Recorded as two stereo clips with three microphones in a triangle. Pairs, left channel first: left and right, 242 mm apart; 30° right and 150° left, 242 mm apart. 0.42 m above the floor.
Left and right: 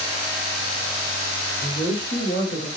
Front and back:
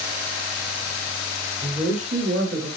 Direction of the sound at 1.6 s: 130° left.